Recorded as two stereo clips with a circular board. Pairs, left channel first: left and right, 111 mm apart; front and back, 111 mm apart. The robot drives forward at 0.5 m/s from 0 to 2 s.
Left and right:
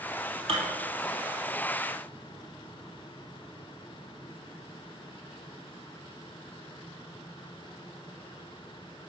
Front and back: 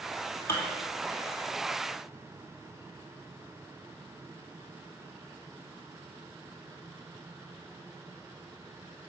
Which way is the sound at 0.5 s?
60° right.